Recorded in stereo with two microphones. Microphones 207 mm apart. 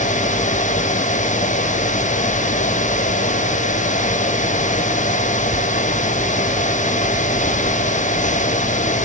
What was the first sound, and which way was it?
Only background noise.